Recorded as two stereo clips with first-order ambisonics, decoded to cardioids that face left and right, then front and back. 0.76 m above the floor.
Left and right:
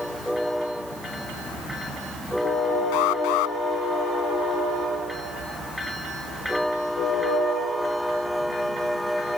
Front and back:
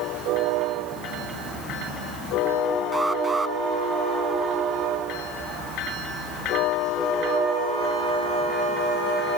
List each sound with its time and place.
2.9 s an alarm: 100° left